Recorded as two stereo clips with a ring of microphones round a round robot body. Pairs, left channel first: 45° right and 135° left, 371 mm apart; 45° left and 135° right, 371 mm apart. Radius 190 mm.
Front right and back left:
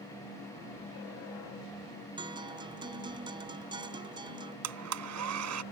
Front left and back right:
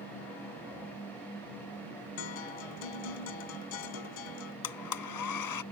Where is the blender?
85° left.